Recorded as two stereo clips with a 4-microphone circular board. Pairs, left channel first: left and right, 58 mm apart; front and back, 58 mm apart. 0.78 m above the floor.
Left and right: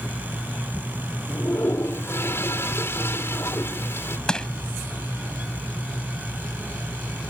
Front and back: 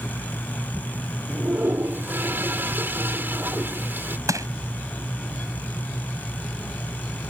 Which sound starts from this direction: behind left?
A toilet flushing, at 1.3 s.